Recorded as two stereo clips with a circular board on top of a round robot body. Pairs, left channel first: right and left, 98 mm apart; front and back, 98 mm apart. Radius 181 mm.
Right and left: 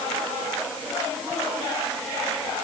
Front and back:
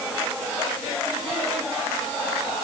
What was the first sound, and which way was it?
Only background noise.